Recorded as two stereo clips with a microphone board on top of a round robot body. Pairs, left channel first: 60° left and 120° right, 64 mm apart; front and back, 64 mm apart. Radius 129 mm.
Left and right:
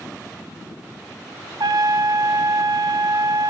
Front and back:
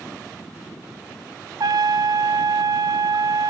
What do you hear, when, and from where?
1.6 s a trumpet: 145° right, 0.6 m